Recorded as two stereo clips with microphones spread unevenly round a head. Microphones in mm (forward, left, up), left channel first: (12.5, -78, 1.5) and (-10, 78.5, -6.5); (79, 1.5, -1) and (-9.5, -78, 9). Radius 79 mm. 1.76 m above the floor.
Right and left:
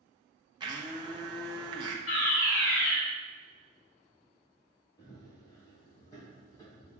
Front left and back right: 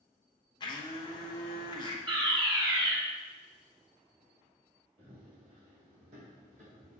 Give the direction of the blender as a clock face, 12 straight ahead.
10 o'clock.